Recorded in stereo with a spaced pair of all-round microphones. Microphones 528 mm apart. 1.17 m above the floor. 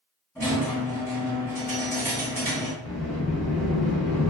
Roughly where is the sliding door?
Centre.